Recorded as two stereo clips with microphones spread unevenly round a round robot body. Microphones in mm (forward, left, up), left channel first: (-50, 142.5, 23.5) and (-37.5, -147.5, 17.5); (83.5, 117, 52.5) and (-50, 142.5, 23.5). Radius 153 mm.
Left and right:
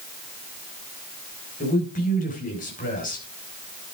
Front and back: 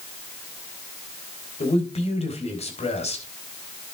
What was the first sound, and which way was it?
A man speaking, 30° left.